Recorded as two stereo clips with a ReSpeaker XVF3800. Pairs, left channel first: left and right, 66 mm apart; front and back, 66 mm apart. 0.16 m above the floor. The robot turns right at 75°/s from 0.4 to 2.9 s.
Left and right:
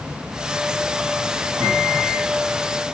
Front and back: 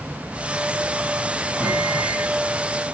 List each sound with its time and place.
1.6 s a microwave: 120° right, 4.5 m; by 2.3 s 65° right, 4.5 m